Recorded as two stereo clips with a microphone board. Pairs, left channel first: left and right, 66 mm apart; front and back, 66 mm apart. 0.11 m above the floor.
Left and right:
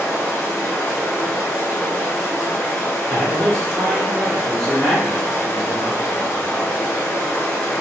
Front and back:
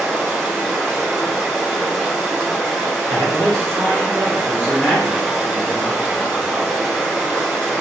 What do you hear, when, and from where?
0.0 s running water: 105° left, 1.4 m
3.1 s a man speaking: 20° left, 1.8 m